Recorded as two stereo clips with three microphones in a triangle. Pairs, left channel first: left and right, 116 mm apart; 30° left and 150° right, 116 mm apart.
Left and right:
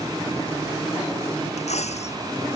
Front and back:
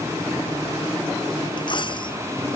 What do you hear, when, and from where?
1.6 s a dropped coin: 75° left